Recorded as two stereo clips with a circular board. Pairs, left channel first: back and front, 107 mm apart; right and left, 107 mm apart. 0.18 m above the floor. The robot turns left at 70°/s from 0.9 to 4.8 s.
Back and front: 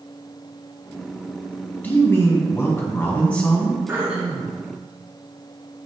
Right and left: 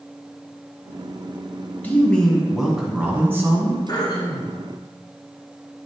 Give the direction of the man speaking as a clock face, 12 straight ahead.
4 o'clock.